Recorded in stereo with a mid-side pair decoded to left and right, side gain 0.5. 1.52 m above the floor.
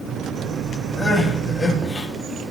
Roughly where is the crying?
Ahead left.